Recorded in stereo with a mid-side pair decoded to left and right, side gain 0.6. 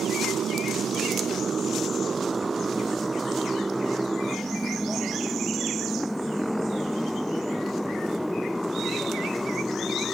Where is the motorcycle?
45° right; by 10.1 s 5° left.